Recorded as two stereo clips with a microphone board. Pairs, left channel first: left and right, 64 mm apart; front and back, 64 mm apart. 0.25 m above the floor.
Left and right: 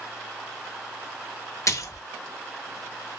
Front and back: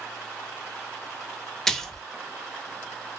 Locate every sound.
1.7 s a splash: 80° left, 0.6 m